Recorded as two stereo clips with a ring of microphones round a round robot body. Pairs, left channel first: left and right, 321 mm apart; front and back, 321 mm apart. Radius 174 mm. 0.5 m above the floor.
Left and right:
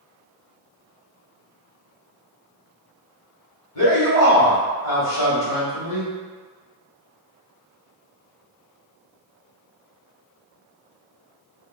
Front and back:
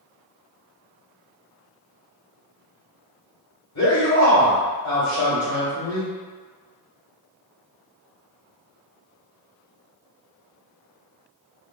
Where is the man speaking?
45° left, 1.8 m.